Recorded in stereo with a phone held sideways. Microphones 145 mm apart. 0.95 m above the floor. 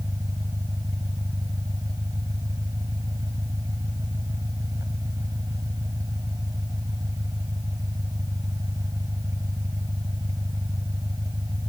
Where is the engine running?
25° right (ahead or behind).